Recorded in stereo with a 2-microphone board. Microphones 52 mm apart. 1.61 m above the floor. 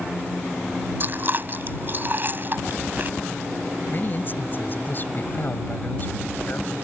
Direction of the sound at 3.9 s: 40° left (ahead or behind).